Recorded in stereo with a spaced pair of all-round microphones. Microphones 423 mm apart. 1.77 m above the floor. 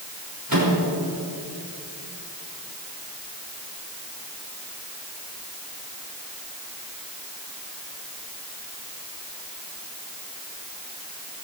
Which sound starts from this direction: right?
A microwave, at 0.5 s.